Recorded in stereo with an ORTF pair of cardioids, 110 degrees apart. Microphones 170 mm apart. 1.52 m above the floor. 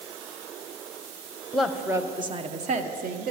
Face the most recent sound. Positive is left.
turn(degrees=-60)